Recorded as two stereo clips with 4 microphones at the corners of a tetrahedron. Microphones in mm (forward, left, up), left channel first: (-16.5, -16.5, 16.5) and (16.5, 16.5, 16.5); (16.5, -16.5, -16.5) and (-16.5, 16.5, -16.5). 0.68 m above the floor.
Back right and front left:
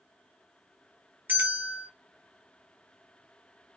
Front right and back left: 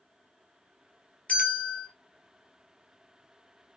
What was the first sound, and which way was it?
A bell, 15° left.